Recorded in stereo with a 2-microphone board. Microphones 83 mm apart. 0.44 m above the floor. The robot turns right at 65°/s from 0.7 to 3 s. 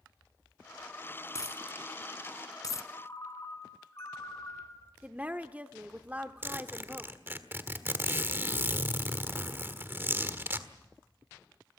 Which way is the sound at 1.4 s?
45° left (ahead or behind).